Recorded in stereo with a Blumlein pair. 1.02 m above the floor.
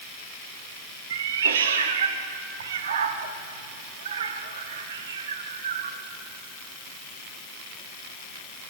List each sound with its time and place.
1.1 s a cat meowing: 60° right, 0.9 m